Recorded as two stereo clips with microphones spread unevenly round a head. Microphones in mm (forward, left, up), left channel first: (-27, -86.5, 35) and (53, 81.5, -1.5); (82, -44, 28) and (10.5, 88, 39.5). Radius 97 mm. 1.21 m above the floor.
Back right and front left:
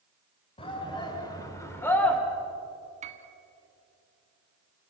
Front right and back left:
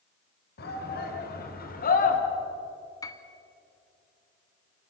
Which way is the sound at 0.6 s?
55° right.